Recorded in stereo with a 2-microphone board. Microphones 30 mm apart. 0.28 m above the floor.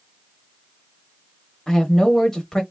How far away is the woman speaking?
About 0.9 m.